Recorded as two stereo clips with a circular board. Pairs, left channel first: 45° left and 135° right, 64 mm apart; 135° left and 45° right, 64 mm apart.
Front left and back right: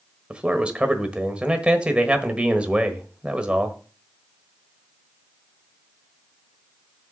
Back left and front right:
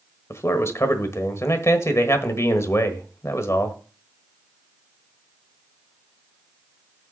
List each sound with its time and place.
0.3 s a man speaking: 155° left, 1.3 m